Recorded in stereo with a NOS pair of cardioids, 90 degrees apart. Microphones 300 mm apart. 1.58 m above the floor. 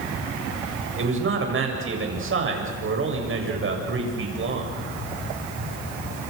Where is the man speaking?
45° right, 7.5 m.